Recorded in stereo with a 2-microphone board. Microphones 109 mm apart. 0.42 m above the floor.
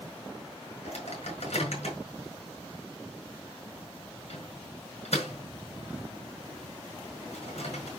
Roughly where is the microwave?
Left.